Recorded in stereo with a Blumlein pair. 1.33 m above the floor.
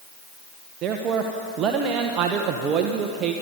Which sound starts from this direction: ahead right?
A man speaking, at 0.8 s.